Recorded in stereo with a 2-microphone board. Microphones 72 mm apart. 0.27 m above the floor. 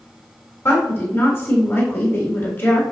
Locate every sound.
0.7 s a woman speaking: 35° left (ahead or behind), 1.9 m